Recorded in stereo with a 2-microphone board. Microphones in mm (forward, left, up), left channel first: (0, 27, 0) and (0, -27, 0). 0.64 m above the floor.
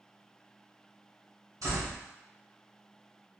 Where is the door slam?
75° right (ahead or behind), 1.8 m.